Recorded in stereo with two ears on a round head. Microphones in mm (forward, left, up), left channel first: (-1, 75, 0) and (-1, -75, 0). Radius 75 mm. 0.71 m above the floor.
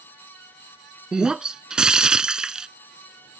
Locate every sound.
1.1 s breaking glass: 5° right (ahead or behind)